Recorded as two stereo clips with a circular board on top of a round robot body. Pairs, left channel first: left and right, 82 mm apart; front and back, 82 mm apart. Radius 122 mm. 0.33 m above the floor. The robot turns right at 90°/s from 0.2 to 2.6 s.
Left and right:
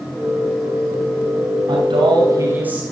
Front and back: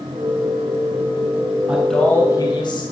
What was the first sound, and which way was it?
A man speaking, 105° right.